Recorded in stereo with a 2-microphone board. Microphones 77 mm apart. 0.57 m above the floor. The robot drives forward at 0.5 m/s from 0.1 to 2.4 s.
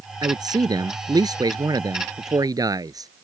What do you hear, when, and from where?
0.2 s a man speaking: 60° right (ahead or behind); by 3.1 s 55° right (ahead or behind)